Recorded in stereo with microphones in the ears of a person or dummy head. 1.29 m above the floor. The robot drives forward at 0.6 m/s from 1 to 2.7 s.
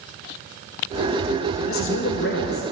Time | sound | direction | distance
1.7 | a man speaking | 65° left (ahead or behind) | 0.9 m